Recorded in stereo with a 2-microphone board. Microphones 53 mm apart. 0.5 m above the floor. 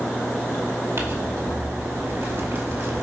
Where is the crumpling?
50° right (ahead or behind), 2 m.